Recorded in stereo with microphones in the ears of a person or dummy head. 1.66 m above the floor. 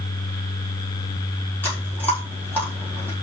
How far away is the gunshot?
No gunshot in this recording.